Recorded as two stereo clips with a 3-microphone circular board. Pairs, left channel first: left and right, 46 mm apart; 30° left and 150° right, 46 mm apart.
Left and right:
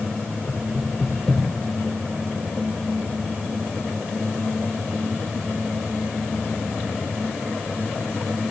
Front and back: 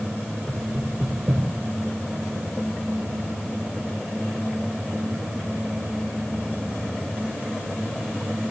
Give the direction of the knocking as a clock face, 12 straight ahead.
7 o'clock.